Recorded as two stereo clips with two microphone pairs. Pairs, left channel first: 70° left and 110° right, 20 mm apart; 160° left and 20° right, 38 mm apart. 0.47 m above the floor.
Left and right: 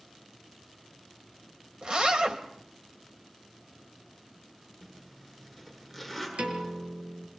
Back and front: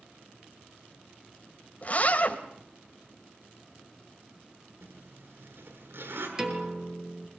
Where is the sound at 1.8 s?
150° right, 3 m.